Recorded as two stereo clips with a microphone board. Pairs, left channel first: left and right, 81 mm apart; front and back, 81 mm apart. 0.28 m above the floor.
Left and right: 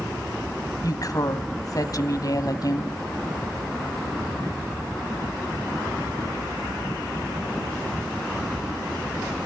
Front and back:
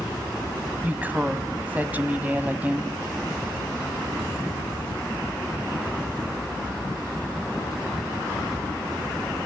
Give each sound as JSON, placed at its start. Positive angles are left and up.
{"t": 0.8, "sound": "a woman speaking", "azimuth_deg": 115, "distance_m": 1.5}